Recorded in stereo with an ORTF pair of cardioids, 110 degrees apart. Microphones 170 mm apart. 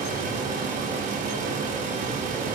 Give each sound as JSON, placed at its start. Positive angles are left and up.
{"t": 0.0, "sound": "a fan", "azimuth_deg": -55, "distance_m": 0.8}